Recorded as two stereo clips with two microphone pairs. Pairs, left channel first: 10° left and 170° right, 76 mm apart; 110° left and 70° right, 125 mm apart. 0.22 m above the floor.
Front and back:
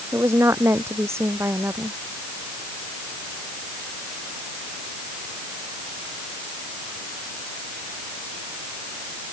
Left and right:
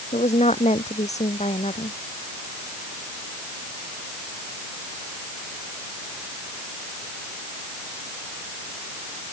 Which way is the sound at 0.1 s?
135° left.